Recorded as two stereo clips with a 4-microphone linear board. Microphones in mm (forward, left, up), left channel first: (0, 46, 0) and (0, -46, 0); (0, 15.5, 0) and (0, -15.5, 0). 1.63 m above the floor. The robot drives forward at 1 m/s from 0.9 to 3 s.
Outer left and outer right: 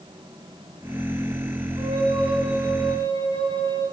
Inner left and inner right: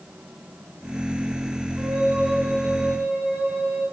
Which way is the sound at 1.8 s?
65° right (ahead or behind).